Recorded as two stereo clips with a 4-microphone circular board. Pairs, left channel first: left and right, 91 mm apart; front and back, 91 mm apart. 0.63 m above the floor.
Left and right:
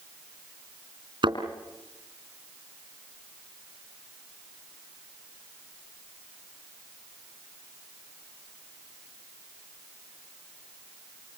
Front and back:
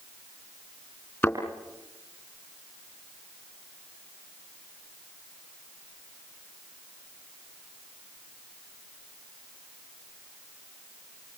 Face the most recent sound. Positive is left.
turn(degrees=-60)